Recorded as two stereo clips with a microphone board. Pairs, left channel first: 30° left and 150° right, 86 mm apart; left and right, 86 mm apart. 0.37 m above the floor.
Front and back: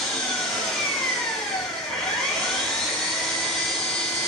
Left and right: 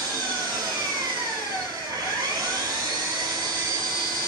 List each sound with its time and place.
0.0 s an engine running: 55° right, 0.9 m